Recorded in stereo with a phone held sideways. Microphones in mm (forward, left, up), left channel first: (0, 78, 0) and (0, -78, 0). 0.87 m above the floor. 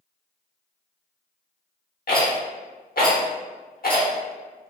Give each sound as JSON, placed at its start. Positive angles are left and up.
{"t": 2.1, "sound": "a rattle", "side_deg": 70, "distance_m": 0.8}